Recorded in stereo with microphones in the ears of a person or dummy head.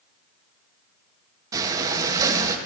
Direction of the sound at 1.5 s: 20° right (ahead or behind).